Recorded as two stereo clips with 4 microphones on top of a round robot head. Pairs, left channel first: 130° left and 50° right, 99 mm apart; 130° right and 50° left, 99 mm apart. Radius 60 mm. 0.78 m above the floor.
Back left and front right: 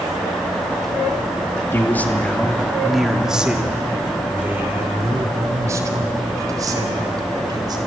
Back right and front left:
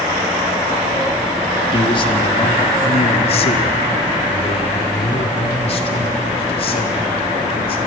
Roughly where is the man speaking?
Behind.